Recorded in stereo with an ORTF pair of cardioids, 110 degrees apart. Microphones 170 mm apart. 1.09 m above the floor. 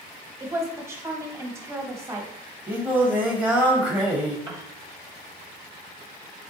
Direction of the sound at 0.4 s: 15° right.